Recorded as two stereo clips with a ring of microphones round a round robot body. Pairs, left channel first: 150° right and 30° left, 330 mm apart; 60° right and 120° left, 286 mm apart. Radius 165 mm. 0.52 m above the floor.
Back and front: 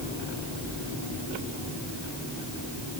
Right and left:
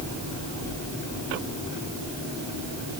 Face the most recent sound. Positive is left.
No sound to turn to.